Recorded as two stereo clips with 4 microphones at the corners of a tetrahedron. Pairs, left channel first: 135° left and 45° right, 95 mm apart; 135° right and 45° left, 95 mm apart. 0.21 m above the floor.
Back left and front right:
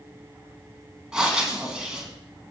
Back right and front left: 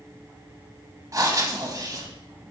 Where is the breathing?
30° left, 1.0 m.